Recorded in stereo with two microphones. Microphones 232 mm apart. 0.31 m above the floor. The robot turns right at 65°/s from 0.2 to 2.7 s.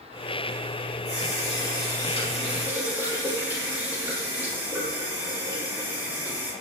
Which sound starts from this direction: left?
A running tap, at 1.1 s.